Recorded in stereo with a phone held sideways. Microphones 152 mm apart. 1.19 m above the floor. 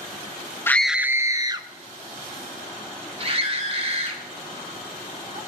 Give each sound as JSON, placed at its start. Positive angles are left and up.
{"t": 0.7, "sound": "a scream", "side_deg": 15, "distance_m": 0.5}